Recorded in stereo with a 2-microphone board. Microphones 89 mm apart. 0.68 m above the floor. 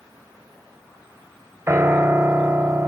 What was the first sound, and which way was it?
A piano, 25° right (ahead or behind).